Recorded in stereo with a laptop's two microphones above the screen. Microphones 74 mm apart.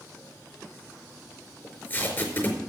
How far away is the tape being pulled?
About 4.5 m.